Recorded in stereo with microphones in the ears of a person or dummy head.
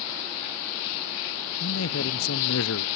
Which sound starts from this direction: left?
A man speaking, at 1.6 s.